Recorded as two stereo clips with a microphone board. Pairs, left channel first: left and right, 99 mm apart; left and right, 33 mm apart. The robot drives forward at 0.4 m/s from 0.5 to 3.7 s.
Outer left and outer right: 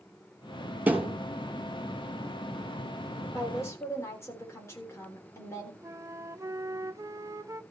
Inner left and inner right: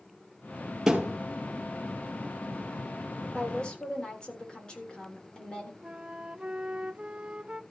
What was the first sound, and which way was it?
A thud, 15° right (ahead or behind).